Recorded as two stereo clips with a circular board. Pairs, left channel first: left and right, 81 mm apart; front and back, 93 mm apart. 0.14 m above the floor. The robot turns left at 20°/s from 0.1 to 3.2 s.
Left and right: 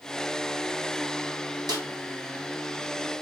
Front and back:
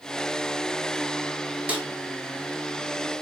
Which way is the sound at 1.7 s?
110° right.